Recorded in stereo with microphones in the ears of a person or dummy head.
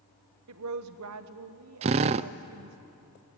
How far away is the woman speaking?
About 1.3 m.